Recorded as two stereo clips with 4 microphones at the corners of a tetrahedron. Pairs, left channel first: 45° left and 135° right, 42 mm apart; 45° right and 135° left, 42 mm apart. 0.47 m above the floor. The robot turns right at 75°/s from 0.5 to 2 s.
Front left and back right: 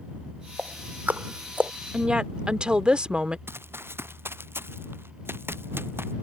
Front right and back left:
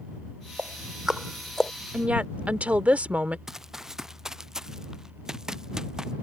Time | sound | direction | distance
0.6 | ticking | 170° left | ?
1.9 | a woman speaking | 170° left | ?
3.5 | running footsteps | 145° right | ?